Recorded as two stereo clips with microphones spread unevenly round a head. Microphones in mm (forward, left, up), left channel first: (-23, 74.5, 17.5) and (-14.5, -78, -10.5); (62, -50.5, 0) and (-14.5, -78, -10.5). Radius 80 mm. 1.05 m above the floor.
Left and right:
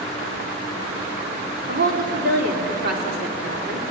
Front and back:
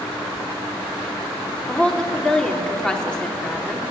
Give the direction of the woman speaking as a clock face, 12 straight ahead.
2 o'clock.